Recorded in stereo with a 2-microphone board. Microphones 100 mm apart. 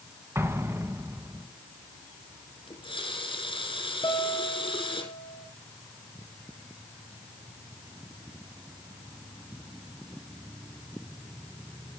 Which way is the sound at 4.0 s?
55° left (ahead or behind).